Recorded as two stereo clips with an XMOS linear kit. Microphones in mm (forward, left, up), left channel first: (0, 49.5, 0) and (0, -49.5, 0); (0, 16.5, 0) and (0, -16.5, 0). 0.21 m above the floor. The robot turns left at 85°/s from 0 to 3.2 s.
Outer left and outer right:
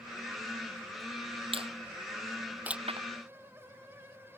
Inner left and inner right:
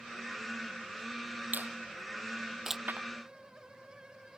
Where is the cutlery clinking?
I don't hear cutlery clinking.